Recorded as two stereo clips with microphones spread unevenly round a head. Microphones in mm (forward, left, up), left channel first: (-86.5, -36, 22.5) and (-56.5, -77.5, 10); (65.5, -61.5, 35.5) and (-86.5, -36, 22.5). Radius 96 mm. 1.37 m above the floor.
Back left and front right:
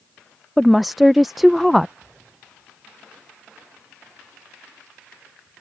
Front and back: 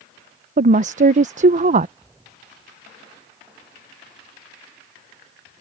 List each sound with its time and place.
0.6 s a woman speaking: 145° right